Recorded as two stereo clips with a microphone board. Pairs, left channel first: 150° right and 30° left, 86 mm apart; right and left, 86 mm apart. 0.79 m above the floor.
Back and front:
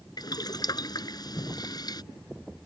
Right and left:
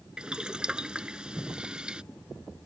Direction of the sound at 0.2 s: 170° left.